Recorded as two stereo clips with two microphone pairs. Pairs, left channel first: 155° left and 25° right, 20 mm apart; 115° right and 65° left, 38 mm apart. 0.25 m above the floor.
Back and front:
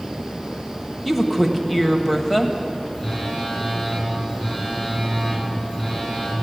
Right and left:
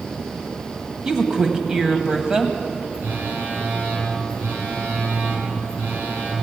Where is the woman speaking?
85° left, 1.2 m.